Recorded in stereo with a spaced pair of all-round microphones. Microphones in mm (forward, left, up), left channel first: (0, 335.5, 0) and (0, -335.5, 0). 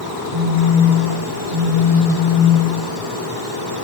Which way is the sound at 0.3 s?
85° left.